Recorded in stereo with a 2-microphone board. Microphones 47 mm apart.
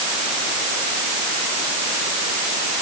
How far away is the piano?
No piano in this recording.